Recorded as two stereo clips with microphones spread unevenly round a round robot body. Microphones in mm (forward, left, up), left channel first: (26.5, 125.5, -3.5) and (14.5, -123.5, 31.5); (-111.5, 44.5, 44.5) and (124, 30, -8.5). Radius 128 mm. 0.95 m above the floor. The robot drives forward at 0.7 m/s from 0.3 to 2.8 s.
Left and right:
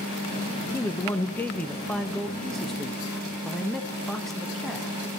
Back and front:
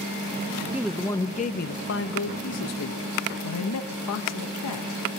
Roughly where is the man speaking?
Ahead left.